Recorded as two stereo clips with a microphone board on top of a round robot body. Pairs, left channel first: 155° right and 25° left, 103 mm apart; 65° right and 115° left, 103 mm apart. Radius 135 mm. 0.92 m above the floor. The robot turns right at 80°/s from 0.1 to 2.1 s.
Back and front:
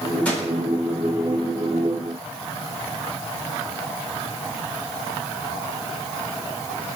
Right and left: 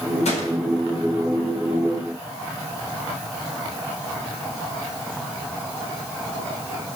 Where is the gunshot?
80° right, 4 m; by 0.5 s 55° right, 4 m.